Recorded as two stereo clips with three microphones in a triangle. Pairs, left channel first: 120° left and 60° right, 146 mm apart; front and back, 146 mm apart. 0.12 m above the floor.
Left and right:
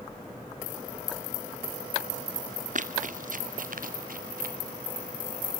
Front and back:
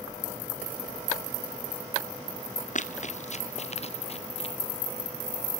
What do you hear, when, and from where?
2.8 s running footsteps: 30° right, 1.7 m; by 4.5 s 45° right, 2.5 m